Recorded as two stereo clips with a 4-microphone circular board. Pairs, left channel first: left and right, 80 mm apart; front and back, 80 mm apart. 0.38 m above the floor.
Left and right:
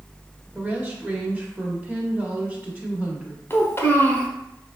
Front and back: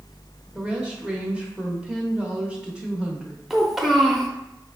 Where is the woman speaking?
125° right, 0.8 m.